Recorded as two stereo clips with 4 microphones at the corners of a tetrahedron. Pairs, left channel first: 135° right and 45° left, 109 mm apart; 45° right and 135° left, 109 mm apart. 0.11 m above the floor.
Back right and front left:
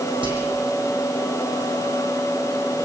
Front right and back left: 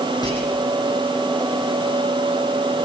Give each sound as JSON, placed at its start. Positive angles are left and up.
{"t": 0.2, "sound": "whispering", "azimuth_deg": 5, "distance_m": 6.5}